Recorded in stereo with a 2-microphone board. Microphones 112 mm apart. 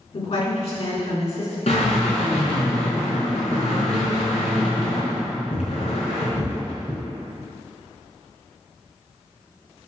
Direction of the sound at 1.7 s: 65° left (ahead or behind).